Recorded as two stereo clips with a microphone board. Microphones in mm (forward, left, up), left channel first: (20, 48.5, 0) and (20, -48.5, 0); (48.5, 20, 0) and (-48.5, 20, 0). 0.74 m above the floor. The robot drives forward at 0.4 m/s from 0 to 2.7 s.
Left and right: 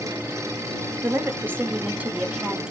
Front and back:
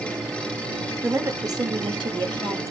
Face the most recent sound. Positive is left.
turn(degrees=-165)